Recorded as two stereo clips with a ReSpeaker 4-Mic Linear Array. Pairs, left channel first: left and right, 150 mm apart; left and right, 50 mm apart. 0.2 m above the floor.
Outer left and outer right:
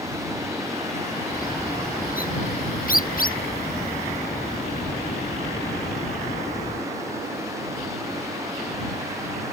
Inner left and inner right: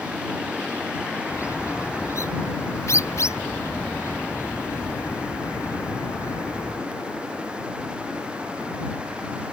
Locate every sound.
1.3 s a bird: 65° left (ahead or behind)